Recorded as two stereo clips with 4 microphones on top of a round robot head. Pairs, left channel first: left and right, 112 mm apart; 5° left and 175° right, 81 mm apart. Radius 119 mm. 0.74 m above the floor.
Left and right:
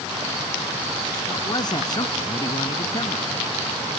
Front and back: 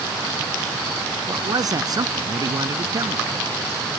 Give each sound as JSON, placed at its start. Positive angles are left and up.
{"t": 1.3, "sound": "a man speaking", "azimuth_deg": 145}